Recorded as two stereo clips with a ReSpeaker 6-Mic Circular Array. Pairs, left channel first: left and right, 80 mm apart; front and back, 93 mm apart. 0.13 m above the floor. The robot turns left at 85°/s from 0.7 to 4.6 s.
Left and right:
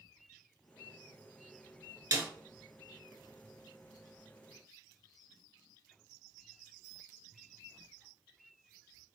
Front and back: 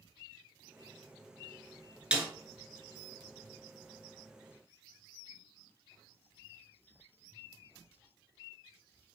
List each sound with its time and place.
2.1 s a snare drum: 105° right, 0.6 m; by 2.3 s 120° right, 0.6 m